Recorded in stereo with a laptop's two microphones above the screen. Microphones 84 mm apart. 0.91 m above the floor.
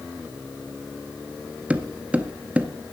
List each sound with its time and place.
1.7 s footsteps: 15° right (ahead or behind), 0.9 m